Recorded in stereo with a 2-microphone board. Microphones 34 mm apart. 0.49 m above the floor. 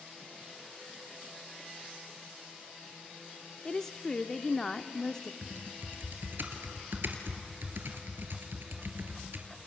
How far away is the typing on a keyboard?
About 2 m.